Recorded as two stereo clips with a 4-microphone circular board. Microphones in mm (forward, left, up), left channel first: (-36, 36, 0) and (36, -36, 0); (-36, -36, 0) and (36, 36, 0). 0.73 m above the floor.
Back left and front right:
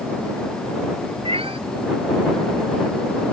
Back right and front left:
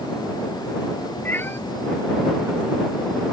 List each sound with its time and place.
1.2 s a cat meowing: 65° right